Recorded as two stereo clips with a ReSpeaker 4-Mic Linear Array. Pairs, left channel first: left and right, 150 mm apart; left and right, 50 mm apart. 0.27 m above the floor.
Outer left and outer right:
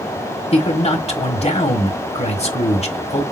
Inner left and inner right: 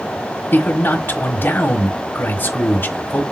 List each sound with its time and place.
0.5 s a man speaking: 45° left (ahead or behind), 1.5 m